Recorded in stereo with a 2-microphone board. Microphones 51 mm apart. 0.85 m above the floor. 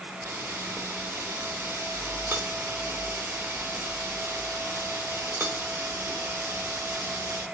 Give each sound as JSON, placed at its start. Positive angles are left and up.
{"t": 0.2, "sound": "a camera shutter", "side_deg": -65, "distance_m": 2.5}